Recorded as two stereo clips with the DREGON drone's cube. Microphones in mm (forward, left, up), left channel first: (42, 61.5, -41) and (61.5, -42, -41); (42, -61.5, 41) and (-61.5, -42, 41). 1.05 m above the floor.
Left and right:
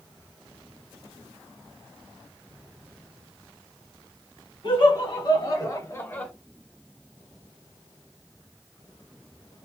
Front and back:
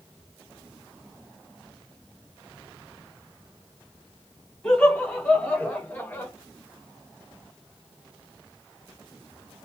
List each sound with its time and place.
4.6 s laughter: 65° left, 1.3 m; by 6.3 s 35° left, 0.7 m